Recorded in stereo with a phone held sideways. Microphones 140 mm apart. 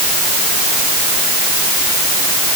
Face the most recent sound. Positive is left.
No sound to turn to.